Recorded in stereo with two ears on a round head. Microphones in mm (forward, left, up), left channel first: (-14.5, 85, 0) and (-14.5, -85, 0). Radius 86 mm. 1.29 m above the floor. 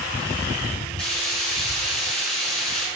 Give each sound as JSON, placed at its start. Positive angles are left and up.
{"t": 1.0, "sound": "frying", "side_deg": 5, "distance_m": 6.5}